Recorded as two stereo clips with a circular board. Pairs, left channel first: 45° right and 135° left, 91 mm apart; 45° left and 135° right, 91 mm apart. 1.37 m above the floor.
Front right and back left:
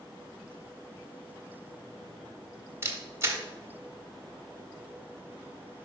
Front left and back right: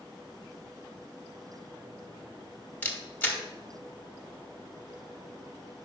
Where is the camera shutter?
100° left, 1.2 m.